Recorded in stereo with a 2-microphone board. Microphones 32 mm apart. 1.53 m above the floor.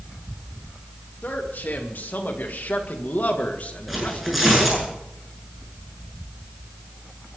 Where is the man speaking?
85° left, 3 m; by 4.9 s 25° left (ahead or behind), 1.9 m.